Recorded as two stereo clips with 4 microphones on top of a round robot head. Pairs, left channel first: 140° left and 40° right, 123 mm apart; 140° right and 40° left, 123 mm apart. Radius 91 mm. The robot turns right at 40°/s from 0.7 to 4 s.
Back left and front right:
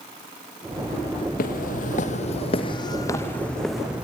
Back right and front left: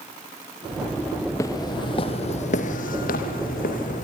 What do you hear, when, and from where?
1.4 s footsteps: 150° left, 1.2 m; by 4.0 s 120° right, 2.5 m